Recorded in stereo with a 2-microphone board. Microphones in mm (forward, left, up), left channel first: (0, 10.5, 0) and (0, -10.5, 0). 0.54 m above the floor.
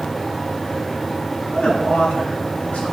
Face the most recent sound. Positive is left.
turn(degrees=60)  # may be behind; listen again after turning